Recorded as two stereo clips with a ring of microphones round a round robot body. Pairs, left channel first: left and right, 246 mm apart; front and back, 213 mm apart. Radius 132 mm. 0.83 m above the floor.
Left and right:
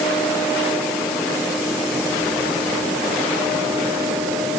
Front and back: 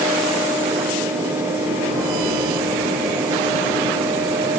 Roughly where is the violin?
No violin in this recording.